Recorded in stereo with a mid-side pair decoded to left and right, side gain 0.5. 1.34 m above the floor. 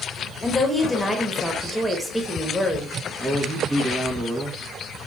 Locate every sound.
0.4 s a woman speaking: 10° left, 1.2 m
3.2 s a man speaking: 25° right, 1.0 m